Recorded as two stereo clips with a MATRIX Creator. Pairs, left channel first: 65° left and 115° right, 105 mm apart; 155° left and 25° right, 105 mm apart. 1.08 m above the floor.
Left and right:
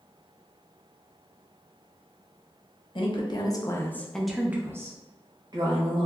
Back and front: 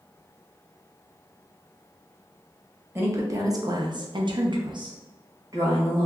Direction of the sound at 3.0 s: 40° left.